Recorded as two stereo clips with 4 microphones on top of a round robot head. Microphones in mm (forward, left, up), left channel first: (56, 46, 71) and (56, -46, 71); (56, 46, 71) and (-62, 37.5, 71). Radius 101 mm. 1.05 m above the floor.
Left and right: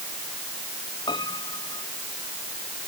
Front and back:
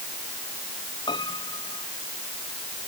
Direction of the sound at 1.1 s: 55° left.